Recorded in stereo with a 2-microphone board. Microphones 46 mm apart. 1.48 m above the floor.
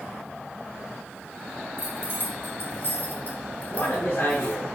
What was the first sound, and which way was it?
Keys jangling, 60° left (ahead or behind).